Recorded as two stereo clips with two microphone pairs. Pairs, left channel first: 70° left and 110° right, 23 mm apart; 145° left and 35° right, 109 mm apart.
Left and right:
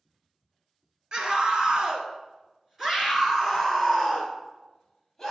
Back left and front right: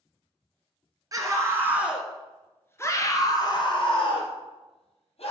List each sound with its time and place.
1.1 s a scream: 80° right, 1.5 m; by 5.3 s 155° left, 2.5 m